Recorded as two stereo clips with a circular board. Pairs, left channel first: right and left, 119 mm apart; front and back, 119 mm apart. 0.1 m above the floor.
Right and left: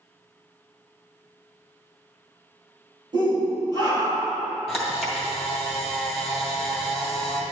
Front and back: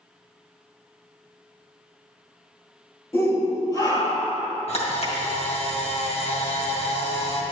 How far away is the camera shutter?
About 2.5 m.